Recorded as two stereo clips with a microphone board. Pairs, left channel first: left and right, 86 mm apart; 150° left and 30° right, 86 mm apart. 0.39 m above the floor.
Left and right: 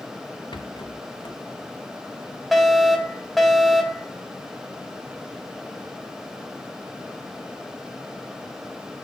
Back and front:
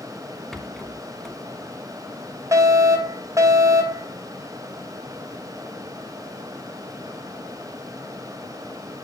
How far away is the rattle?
About 1.4 m.